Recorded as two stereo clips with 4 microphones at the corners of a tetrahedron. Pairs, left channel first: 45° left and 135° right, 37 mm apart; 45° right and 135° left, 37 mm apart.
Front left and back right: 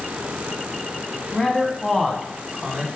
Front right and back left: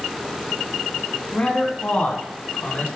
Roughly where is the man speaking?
Ahead.